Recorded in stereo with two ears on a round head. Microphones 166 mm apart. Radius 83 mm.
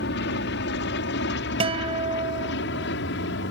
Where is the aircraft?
60° left (ahead or behind); by 3.5 s 65° left (ahead or behind).